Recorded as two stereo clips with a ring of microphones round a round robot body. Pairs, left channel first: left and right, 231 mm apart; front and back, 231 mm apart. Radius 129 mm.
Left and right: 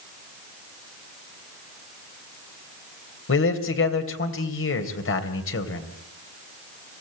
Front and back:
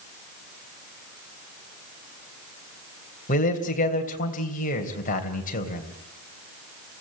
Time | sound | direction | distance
3.3 | a man speaking | 60° left | 3 m